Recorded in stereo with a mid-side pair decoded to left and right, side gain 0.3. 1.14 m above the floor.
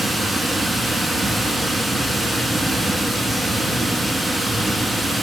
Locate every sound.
0.0 s running water: 50° right, 3 m